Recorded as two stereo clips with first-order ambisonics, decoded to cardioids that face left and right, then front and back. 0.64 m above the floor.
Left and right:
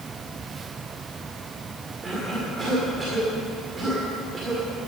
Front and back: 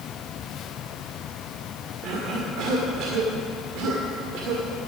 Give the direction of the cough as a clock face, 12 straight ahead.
5 o'clock.